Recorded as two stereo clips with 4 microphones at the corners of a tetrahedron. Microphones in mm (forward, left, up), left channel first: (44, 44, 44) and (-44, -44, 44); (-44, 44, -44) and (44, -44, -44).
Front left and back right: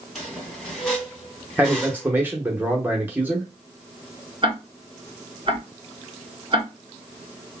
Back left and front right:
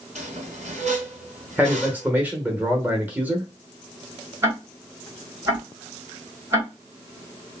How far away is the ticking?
About 1.7 m.